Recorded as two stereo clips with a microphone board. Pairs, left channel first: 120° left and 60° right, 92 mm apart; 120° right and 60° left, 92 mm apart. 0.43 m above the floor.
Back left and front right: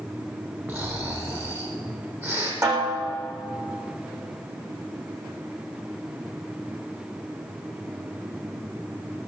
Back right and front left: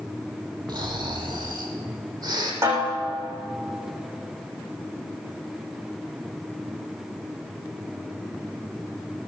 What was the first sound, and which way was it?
Snoring, 10° left.